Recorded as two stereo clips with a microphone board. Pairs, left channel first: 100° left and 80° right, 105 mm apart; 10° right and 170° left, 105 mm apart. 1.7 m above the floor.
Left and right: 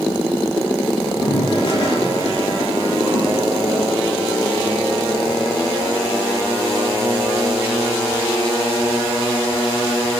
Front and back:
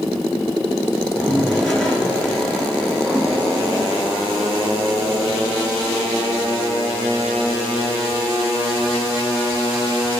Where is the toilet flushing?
70° left, 2 m.